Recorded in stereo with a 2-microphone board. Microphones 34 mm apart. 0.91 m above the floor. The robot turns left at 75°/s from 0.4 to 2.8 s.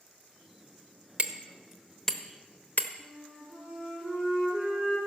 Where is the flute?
25° right (ahead or behind), 5 m.